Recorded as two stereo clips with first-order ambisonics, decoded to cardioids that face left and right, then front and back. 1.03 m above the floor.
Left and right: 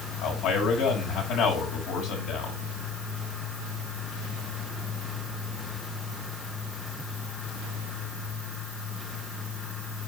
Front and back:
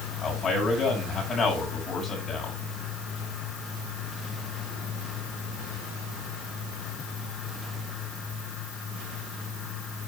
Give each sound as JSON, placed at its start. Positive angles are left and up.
{"t": 0.2, "sound": "a man speaking", "azimuth_deg": 80, "distance_m": 5.5}